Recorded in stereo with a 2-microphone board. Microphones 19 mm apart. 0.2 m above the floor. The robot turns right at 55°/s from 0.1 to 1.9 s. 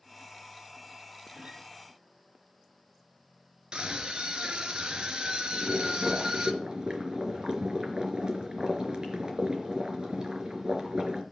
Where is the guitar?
65° right (ahead or behind), 2.5 m; by 1.6 s 80° right, 2.5 m.